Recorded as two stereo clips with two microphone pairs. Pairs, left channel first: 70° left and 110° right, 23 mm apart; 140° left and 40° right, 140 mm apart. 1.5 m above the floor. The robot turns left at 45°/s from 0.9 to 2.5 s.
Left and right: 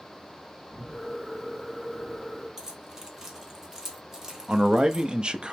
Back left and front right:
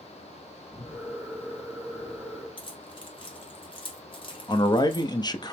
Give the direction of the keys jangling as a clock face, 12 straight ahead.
6 o'clock.